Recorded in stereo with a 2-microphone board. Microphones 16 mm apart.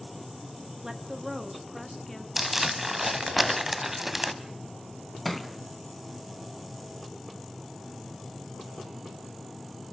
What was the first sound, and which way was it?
A woman speaking, 30° right (ahead or behind).